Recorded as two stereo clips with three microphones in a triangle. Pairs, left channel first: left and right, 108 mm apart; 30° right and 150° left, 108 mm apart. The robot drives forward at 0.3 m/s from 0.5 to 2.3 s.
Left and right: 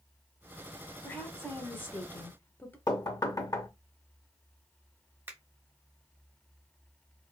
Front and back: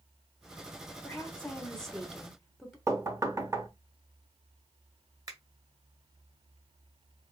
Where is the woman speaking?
30° left, 1.2 m; by 2.8 s 60° left, 1.1 m.